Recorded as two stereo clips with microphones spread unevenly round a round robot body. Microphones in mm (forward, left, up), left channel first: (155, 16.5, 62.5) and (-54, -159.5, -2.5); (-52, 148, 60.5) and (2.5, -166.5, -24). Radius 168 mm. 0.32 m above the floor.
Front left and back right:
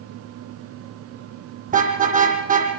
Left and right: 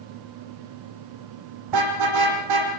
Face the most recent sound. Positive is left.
turn(degrees=-80)